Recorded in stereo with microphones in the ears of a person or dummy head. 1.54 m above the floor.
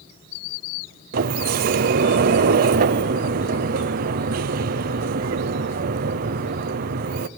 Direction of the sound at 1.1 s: 45° right (ahead or behind).